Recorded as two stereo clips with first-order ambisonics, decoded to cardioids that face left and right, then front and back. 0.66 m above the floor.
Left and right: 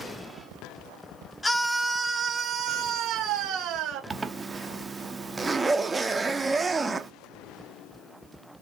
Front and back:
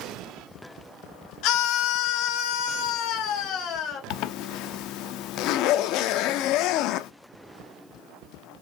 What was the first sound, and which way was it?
A scream, 10° left.